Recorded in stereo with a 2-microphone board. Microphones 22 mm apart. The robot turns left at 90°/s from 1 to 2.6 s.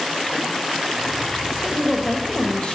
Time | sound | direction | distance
1.6 | a woman speaking | 150° right | 2.5 m